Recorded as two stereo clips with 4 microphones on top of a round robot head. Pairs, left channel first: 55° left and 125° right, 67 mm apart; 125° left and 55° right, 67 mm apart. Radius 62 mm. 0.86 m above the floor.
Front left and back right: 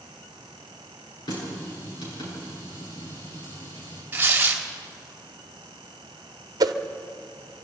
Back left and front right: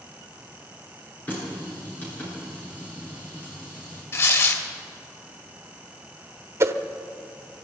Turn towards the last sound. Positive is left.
turn(degrees=-100)